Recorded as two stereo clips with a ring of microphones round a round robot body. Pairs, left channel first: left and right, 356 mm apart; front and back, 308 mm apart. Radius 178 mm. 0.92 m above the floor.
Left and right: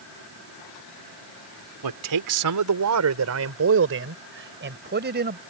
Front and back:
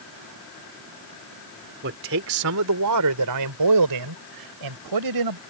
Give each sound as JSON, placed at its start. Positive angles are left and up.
{"t": 1.8, "sound": "a man speaking", "azimuth_deg": -120}